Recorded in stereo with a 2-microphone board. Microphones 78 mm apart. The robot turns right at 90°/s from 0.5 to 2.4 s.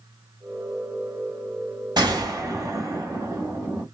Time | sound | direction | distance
2.0 | a gunshot | 90° right | 1.5 m